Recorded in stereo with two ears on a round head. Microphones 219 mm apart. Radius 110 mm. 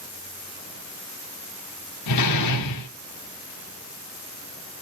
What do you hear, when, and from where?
2.1 s a door slam: 80° left, 1.6 m